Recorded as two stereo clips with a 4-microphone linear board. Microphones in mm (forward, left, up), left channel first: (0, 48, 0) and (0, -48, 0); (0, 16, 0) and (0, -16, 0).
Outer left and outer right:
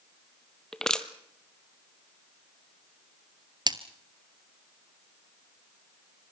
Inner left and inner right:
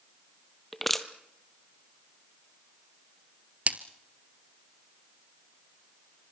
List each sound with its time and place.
0.7 s crushing: 5° left (ahead or behind), 1.2 m
3.7 s a splash: 50° right (ahead or behind), 1.3 m